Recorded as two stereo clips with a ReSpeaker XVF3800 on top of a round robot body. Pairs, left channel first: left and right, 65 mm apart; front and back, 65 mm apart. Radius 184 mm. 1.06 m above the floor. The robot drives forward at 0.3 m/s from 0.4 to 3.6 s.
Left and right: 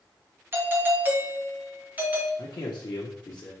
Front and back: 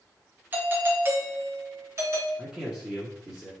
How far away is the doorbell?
About 1.4 m.